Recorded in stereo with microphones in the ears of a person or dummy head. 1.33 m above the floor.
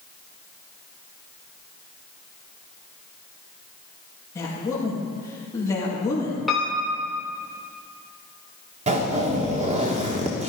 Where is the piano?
5° left (ahead or behind), 2.5 m.